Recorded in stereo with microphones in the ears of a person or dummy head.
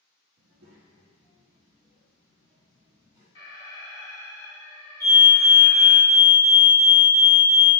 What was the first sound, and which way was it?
A child speaking, 55° right (ahead or behind).